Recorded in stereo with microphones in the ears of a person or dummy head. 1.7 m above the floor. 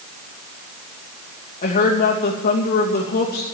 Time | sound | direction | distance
1.6 | a woman speaking | 40° left (ahead or behind) | 2.5 m